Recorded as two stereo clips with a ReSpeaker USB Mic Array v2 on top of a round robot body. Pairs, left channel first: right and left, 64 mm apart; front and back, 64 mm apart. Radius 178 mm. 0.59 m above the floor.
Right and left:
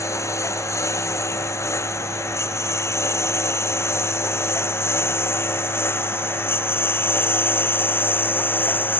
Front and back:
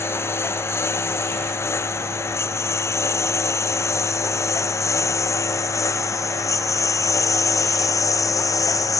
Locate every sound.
0.0 s a lawn mower: 50° right; by 9.0 s 30° right